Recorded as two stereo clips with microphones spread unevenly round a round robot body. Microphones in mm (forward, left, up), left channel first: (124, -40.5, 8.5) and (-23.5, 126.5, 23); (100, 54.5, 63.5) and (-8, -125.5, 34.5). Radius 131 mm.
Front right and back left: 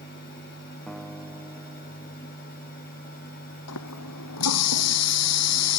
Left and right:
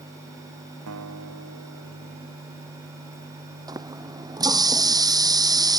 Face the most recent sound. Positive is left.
turn(degrees=-50)